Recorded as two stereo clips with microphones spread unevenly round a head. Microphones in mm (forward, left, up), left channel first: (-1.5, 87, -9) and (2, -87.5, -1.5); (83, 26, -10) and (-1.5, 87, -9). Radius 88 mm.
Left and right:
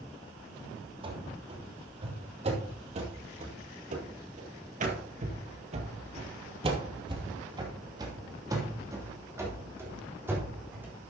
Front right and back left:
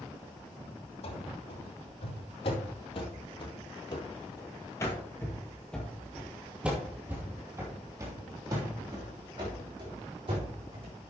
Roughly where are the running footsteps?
Ahead right.